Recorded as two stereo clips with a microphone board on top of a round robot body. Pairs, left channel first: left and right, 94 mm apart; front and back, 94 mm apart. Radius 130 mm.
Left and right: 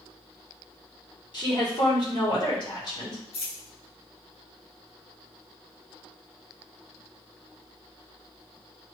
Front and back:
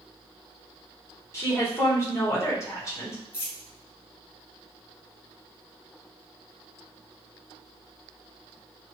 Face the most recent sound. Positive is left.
turn(degrees=70)